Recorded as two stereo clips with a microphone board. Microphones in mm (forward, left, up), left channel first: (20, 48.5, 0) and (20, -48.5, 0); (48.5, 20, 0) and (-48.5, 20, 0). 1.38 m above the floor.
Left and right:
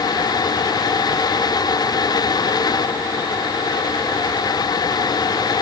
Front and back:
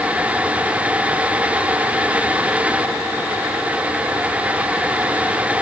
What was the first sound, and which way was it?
Only background noise.